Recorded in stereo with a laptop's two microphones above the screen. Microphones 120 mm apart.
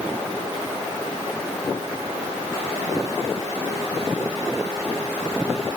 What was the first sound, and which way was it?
Only background noise.